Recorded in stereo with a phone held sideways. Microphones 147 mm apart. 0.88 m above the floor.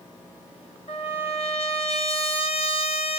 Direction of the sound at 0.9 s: 45° left (ahead or behind).